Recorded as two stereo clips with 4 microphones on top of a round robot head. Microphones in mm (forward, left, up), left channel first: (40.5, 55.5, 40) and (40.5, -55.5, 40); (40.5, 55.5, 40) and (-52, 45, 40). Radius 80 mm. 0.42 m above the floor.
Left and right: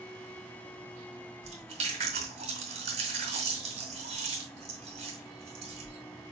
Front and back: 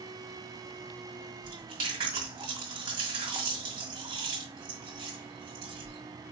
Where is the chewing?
125° right, 2.0 m.